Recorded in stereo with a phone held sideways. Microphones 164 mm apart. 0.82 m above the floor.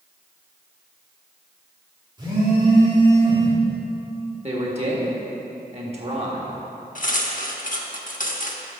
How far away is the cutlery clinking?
About 0.8 m.